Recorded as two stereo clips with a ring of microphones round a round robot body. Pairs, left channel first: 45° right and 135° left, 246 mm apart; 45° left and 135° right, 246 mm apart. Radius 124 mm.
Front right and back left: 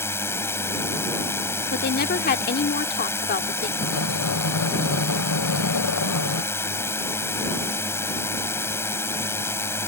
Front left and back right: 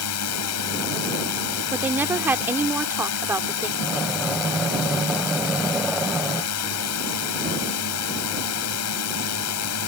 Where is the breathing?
45° right.